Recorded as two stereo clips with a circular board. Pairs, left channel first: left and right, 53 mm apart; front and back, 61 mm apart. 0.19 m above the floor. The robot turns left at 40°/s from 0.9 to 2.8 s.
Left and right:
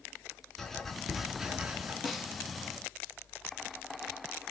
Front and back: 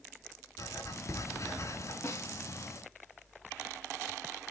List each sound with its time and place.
0.6 s writing: 5° left, 1.6 m; by 1.9 s 35° right, 1.6 m
2.0 s a snare drum: 5° left, 1.5 m; by 2.3 s 10° right, 1.5 m